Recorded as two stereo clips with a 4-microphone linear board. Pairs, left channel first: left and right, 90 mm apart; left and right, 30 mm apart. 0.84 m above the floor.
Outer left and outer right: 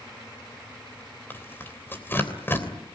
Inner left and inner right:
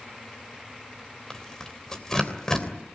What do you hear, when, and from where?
1.3 s tearing paper: 25° left (ahead or behind), 3 m